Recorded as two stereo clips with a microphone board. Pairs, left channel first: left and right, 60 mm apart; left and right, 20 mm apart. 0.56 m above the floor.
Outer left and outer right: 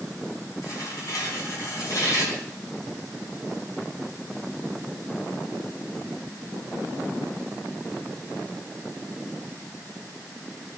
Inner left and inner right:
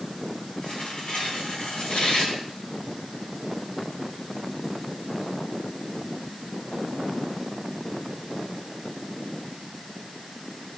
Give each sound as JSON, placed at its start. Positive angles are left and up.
{"t": 0.6, "sound": "tearing paper", "side_deg": 60, "distance_m": 5.5}